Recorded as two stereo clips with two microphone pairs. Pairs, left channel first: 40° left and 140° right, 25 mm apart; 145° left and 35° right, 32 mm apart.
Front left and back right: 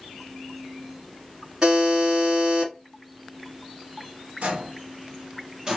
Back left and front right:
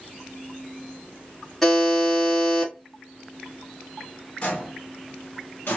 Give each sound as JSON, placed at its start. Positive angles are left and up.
{"t": 1.6, "sound": "a buzzer", "azimuth_deg": -135, "distance_m": 1.3}
{"t": 4.4, "sound": "footsteps", "azimuth_deg": -160, "distance_m": 1.1}